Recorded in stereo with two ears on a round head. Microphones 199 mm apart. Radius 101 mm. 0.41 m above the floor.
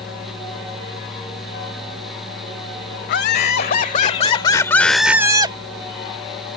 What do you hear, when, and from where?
3.1 s laughter: 50° left (ahead or behind); by 5.6 s 25° right (ahead or behind)